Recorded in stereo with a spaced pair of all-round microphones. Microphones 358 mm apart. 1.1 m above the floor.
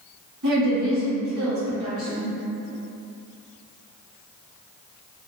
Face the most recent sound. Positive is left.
turn(degrees=-55)  # may be behind; listen again after turning